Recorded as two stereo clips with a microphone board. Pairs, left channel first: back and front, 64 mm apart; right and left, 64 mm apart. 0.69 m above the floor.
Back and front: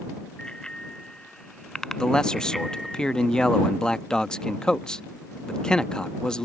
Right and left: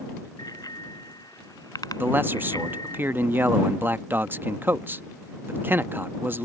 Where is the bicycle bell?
105° right; by 3.0 s 90° right.